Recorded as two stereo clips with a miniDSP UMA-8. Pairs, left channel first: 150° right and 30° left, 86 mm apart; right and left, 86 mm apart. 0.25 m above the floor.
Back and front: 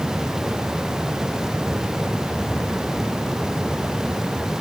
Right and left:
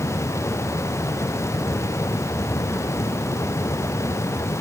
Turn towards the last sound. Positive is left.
No sound to turn to.